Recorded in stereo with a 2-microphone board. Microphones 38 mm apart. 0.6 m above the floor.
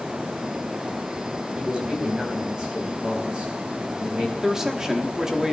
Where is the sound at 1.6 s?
30° right (ahead or behind), 4 m.